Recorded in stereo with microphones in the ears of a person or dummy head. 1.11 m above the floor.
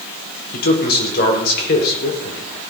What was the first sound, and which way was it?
A man speaking, 55° left (ahead or behind).